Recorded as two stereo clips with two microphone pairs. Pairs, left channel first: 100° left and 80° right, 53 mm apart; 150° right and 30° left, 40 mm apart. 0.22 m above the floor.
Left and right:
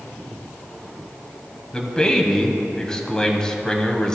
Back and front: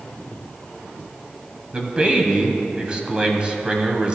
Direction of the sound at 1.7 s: 40° left.